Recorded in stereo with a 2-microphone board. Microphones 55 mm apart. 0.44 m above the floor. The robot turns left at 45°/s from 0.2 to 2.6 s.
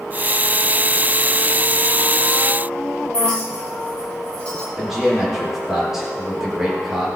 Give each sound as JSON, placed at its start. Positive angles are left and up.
{"t": 3.1, "sound": "a clink", "side_deg": 20, "distance_m": 7.0}
{"t": 4.8, "sound": "a man speaking", "side_deg": -10, "distance_m": 8.0}